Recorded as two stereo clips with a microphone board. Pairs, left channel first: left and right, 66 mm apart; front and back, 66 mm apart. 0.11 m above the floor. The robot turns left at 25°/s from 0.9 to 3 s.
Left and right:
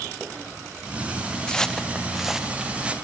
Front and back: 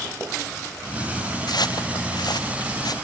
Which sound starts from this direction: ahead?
Footsteps, at 1.5 s.